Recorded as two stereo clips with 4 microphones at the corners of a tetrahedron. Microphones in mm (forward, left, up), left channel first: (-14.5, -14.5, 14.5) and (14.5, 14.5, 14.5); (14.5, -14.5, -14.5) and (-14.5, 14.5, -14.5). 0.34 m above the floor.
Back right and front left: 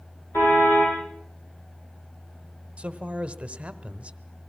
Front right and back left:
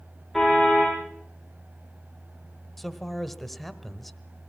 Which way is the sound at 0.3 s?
135° right.